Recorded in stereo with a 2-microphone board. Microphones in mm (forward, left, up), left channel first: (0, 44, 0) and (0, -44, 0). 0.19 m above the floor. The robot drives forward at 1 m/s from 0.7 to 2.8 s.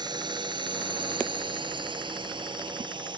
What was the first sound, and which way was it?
A drone, 60° right (ahead or behind).